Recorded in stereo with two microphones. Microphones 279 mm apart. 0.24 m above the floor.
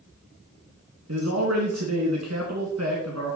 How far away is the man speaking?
About 2 m.